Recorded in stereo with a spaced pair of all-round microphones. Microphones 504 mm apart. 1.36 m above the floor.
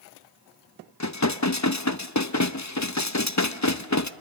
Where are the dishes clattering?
35° left (ahead or behind), 0.8 m.